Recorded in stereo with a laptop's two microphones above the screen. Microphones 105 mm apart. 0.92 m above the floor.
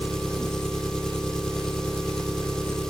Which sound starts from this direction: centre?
An engine running, at 0.0 s.